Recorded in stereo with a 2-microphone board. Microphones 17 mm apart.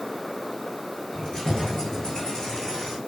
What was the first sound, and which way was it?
Keys jangling, 45° left (ahead or behind).